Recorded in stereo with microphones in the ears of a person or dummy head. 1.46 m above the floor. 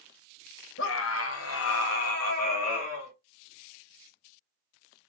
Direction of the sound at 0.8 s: 65° left (ahead or behind).